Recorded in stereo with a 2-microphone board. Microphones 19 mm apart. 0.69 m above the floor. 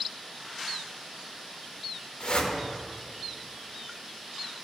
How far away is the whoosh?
About 1.8 m.